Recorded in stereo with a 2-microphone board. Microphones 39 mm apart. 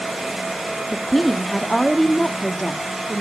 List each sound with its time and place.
0.9 s a woman speaking: 10° left (ahead or behind), 0.8 m